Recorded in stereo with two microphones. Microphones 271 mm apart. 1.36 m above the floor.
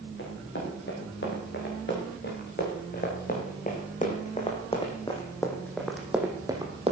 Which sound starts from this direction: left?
Running footsteps, at 0.2 s.